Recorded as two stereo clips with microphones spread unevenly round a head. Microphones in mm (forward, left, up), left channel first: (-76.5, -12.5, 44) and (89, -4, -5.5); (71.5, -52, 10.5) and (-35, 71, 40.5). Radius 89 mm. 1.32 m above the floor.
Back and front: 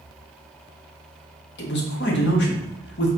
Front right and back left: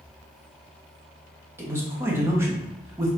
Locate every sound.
1.6 s a man speaking: 150° right, 1.1 m